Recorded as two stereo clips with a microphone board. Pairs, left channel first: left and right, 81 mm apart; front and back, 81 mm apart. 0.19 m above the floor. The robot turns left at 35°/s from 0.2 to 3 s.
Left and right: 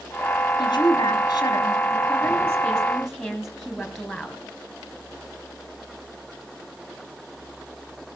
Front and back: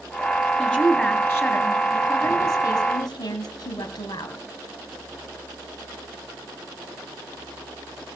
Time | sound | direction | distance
0.6 | a woman speaking | 85° left | 3.5 m